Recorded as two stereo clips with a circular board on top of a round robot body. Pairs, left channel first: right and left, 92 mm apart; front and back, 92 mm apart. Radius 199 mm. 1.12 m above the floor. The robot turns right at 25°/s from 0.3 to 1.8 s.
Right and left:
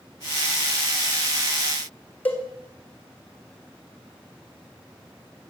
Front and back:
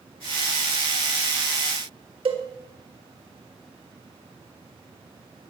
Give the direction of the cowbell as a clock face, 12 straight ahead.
5 o'clock.